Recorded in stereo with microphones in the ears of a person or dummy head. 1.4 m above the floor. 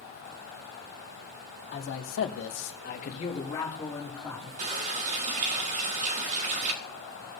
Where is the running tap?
40° right (ahead or behind), 1.6 m.